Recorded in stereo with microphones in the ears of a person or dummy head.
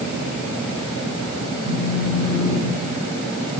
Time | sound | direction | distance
1.6 | a phone buzzing | 25° left (ahead or behind) | 7 m